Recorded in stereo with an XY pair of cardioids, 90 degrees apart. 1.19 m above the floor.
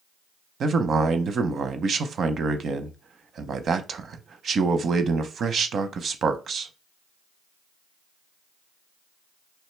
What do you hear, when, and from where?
0.6 s a man speaking: 60° right, 0.7 m